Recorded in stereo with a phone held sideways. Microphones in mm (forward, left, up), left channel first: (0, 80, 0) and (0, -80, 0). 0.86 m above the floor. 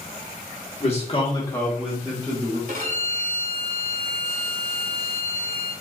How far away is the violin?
About 1.5 m.